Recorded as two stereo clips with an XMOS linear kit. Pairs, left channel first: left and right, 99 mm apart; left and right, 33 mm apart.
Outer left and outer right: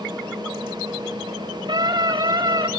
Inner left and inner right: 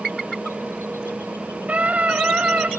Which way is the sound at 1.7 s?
45° right (ahead or behind).